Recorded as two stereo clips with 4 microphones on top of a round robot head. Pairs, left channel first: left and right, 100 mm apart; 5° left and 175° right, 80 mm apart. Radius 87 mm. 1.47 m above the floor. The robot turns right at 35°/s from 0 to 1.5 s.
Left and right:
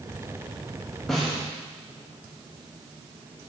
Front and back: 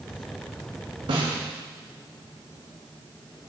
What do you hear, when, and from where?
1.1 s a snare drum: 175° left, 1.4 m; by 1.4 s 170° right, 1.4 m